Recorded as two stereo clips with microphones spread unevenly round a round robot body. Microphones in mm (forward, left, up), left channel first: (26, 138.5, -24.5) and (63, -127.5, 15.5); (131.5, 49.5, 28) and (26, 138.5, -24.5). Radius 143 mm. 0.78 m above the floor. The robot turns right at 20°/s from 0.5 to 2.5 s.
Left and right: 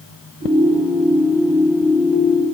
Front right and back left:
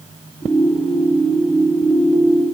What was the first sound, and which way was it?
Only background noise.